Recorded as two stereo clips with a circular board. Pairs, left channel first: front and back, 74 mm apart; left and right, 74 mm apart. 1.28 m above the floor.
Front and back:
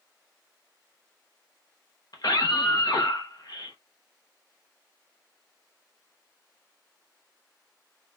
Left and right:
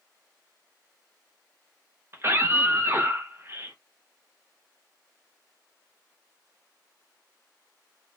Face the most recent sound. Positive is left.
turn(degrees=-35)